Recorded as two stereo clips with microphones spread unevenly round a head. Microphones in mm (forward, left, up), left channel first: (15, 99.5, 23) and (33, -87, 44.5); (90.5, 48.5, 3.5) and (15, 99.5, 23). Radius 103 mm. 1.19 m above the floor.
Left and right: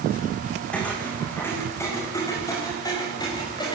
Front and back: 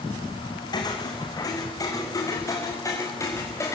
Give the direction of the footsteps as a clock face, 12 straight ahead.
12 o'clock.